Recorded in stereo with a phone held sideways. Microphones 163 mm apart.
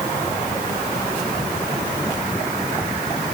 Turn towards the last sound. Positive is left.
No sound to turn to.